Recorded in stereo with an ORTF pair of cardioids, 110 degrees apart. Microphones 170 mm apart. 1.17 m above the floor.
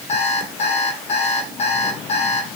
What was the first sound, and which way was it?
An alarm clock, 40° left.